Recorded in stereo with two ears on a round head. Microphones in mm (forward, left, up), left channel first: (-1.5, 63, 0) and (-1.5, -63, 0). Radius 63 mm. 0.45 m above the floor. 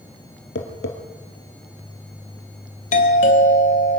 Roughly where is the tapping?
Left.